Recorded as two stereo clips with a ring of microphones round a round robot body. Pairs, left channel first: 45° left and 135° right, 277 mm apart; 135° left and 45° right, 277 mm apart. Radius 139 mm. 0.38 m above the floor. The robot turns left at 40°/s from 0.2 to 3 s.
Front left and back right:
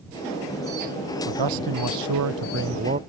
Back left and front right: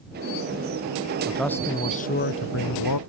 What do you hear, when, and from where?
1.3 s a man speaking: 130° right; by 3.0 s 160° left